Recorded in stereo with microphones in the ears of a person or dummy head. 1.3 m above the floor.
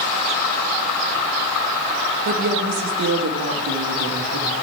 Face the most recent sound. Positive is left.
turn(degrees=-85)